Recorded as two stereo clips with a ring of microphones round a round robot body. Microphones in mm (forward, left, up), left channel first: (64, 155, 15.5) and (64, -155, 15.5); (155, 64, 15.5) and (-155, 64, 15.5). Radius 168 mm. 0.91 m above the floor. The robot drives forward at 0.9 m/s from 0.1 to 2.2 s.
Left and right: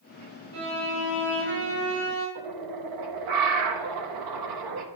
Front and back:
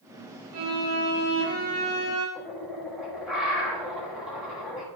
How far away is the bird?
About 1.0 m.